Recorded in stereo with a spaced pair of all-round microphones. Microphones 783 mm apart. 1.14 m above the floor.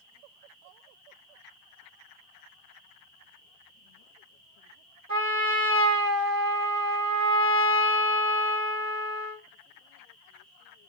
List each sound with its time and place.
5.1 s a trumpet: 50° right (ahead or behind), 2.5 m